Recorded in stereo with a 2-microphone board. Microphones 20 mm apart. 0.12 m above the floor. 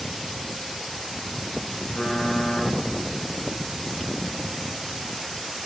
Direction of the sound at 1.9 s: 30° left (ahead or behind).